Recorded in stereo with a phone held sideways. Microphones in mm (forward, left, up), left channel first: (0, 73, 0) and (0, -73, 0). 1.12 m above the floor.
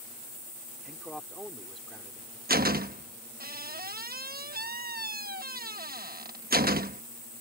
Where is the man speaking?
Centre (ahead or behind).